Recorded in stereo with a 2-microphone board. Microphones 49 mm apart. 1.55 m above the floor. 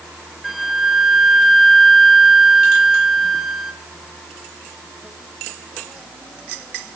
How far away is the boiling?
I don't hear boiling.